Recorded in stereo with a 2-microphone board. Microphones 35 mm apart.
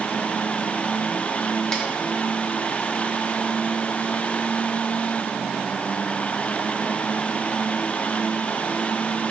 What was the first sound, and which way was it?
A snare drum, 15° left (ahead or behind).